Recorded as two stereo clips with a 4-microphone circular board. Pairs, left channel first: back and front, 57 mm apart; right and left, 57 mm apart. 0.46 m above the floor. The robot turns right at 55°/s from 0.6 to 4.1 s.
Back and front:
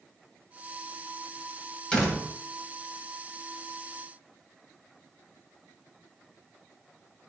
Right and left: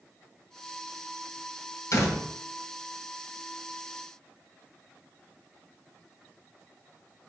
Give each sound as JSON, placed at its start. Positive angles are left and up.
{"t": 1.9, "sound": "a door slam", "azimuth_deg": -105, "distance_m": 1.8}